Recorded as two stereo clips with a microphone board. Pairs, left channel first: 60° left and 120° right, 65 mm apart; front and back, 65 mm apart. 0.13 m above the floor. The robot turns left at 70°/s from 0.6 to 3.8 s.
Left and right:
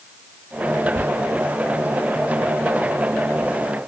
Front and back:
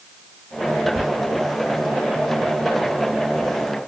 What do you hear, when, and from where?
0.9 s whispering: 105° right, 1.5 m; by 1.1 s 115° right, 1.5 m